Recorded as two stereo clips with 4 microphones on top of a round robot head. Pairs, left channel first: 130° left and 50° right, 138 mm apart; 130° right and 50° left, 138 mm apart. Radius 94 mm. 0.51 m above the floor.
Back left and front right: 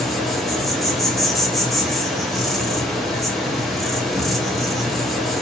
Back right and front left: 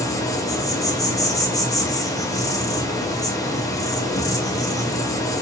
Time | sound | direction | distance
0.0 | an insect | 140° right | 0.9 m